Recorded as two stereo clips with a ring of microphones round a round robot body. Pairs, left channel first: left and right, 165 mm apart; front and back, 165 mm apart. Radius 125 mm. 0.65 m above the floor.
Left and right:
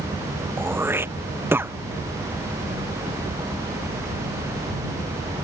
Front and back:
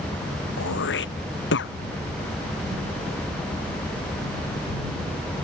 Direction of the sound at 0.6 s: 15° right.